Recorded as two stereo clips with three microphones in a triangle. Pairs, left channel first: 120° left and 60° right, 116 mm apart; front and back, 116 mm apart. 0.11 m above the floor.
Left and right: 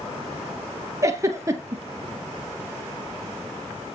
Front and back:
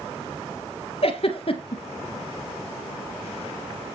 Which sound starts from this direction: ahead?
A giggle, at 1.0 s.